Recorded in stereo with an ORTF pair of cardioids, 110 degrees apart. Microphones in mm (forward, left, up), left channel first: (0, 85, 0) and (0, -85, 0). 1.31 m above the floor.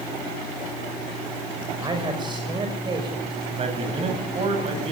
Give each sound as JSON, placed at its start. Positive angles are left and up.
{"t": 1.8, "sound": "a man speaking", "azimuth_deg": -25, "distance_m": 6.0}
{"t": 3.5, "sound": "a man speaking", "azimuth_deg": -35, "distance_m": 9.5}